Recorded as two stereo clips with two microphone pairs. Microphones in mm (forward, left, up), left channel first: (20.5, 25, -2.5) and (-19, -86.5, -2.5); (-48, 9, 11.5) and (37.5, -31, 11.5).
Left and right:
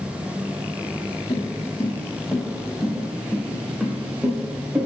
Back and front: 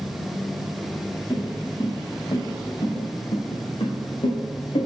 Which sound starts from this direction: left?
Footsteps, at 1.3 s.